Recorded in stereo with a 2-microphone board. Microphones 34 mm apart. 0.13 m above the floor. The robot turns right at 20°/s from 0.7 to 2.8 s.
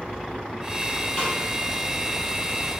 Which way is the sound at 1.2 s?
20° left (ahead or behind).